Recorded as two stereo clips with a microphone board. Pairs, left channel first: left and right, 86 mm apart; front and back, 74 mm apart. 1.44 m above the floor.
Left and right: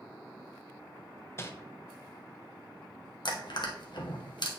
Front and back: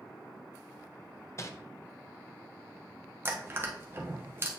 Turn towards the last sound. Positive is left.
turn(degrees=120)